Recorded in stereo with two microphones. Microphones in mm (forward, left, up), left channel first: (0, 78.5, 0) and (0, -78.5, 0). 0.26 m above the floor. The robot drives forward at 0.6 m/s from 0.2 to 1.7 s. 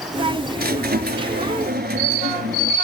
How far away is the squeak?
About 2 m.